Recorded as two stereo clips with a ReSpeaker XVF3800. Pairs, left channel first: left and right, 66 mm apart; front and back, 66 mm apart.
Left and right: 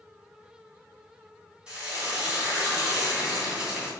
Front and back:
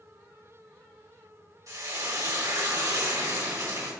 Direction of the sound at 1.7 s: 165° right.